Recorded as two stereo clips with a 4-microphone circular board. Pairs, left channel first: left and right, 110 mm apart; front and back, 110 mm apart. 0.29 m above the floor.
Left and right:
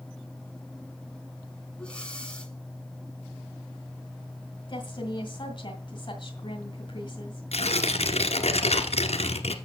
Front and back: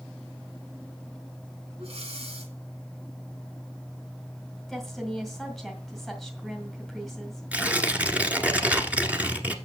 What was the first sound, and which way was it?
Breathing, 170° left.